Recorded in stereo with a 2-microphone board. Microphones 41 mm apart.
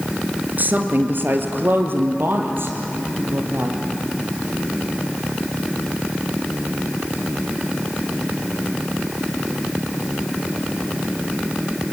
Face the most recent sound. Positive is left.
turn(degrees=-70)  # may be behind; listen again after turning